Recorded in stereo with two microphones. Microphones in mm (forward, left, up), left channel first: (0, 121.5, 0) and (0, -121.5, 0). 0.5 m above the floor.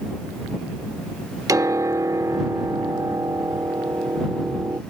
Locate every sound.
1.5 s a piano: 15° right (ahead or behind)